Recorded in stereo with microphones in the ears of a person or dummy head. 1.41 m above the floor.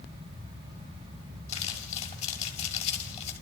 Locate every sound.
1.5 s crumpling: 35° left (ahead or behind), 6.5 m